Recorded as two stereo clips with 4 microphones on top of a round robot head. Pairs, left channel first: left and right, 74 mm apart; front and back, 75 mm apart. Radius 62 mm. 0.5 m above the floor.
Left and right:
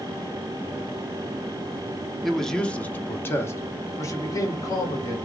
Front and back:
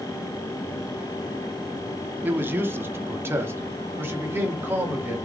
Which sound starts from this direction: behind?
A man speaking, at 2.2 s.